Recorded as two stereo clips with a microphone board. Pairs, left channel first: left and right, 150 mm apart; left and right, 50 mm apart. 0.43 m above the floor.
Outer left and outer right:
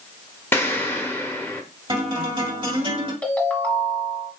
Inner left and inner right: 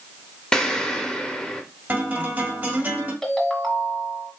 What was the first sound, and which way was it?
An explosion, 15° left (ahead or behind).